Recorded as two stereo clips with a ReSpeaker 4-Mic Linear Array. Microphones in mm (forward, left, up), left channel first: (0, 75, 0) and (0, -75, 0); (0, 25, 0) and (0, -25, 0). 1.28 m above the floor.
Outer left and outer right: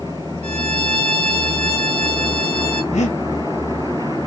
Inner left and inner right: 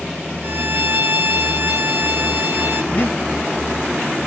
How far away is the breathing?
About 0.8 m.